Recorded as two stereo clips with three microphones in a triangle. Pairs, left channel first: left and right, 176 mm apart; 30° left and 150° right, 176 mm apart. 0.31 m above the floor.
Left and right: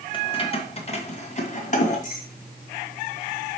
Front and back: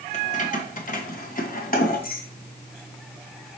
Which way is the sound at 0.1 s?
45° left.